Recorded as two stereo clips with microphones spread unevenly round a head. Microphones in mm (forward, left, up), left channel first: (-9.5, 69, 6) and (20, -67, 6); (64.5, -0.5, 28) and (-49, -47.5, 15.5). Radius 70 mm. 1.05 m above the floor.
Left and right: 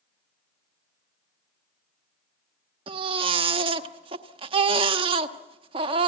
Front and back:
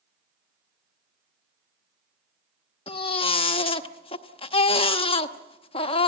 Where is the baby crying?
20° right, 1.1 m.